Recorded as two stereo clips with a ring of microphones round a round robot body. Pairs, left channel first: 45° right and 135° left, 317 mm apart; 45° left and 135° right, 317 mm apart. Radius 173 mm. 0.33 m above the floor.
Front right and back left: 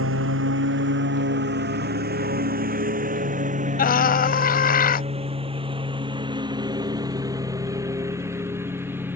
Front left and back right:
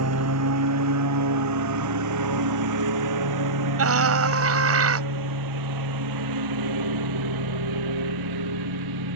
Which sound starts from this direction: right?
A scream, at 3.8 s.